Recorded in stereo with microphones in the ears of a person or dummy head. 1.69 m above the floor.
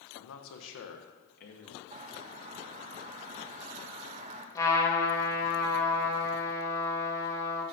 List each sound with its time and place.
0.1 s a man speaking: 65° left (ahead or behind), 1.1 m; by 1.8 s 50° left (ahead or behind), 1.4 m
1.9 s a bird: 35° right (ahead or behind), 0.7 m
4.5 s a trumpet: 20° left (ahead or behind), 1.8 m